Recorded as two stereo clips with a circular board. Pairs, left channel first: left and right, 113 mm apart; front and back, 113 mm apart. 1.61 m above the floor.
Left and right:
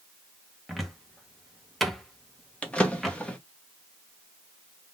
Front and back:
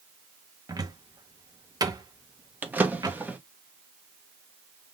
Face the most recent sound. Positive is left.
turn(degrees=145)